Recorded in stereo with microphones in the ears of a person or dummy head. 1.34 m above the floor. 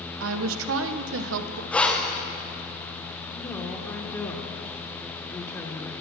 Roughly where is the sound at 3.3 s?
Centre.